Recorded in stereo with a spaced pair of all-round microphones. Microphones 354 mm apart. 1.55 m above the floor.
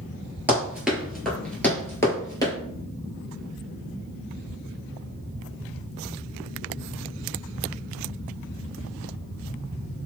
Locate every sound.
0.5 s running footsteps: 5° right (ahead or behind), 1.6 m; by 2.5 s 10° left (ahead or behind), 1.6 m